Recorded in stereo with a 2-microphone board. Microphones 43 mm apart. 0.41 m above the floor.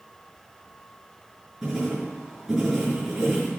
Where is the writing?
10° right (ahead or behind), 6 m.